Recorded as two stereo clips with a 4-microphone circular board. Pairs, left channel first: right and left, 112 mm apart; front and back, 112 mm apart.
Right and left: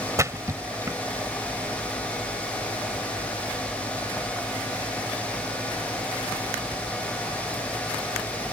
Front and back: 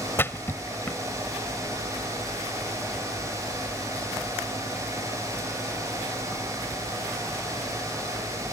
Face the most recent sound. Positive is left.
turn(degrees=55)